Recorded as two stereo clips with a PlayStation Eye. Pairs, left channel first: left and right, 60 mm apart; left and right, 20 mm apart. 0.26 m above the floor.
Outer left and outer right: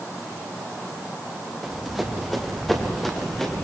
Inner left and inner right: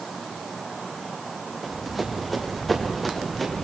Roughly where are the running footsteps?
Centre.